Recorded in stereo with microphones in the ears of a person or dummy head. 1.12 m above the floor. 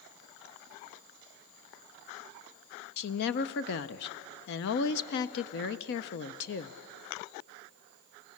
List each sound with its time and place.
3.0 s a woman speaking: 55° left (ahead or behind), 0.6 m